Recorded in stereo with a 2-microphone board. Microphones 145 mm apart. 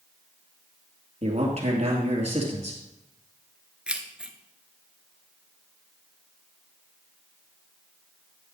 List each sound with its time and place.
1.2 s a man speaking: 50° right (ahead or behind), 2.5 m
3.9 s keys jangling: 5° right (ahead or behind), 1.0 m